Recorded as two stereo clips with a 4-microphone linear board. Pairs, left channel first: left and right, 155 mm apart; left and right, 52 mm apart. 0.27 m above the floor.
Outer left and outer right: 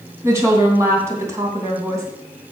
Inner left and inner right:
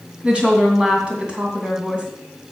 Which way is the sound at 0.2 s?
20° right (ahead or behind).